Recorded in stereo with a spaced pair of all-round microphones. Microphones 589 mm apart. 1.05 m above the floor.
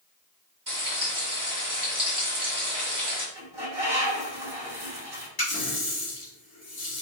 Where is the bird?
40° right (ahead or behind), 2.5 m.